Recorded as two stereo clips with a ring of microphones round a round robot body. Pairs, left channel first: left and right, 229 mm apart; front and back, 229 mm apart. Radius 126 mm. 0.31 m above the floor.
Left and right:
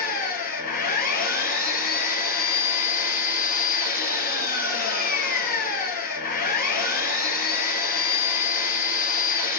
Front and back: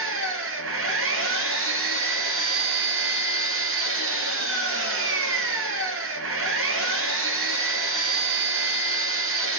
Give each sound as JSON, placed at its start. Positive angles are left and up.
{"t": 0.0, "sound": "an engine running", "azimuth_deg": 150, "distance_m": 1.8}